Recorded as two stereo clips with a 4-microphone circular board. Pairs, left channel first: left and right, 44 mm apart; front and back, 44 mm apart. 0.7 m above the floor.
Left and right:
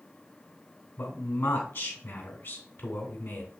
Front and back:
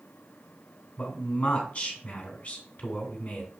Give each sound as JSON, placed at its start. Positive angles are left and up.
{"t": 1.0, "sound": "a man speaking", "azimuth_deg": 65, "distance_m": 2.5}